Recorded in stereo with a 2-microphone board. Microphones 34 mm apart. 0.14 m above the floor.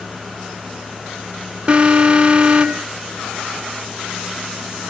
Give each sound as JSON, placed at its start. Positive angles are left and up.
{"t": 1.7, "sound": "an alarm", "side_deg": -30, "distance_m": 0.8}